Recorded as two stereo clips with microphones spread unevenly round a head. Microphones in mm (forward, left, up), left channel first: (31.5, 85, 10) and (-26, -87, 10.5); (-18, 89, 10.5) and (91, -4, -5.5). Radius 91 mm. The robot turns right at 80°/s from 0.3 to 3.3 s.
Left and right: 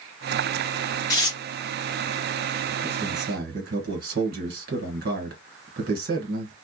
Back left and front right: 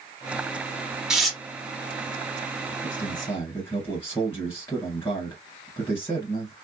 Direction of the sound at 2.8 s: Straight behind.